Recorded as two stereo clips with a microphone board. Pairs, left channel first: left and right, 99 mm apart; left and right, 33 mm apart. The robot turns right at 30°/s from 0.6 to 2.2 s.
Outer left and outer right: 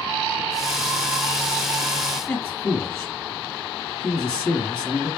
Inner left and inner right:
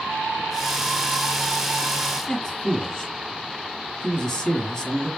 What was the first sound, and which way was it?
A man speaking, 10° left (ahead or behind).